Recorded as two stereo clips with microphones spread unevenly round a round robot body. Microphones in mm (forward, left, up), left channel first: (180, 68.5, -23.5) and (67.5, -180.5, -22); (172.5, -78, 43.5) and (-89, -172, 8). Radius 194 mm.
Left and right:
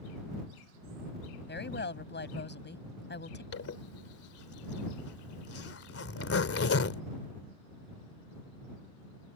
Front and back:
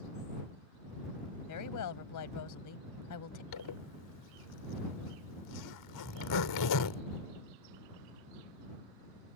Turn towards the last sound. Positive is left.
turn(degrees=30)